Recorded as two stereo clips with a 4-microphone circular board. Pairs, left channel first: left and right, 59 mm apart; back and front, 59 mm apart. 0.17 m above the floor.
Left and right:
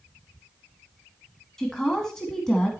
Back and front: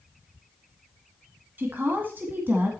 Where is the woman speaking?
15° left, 1.5 m.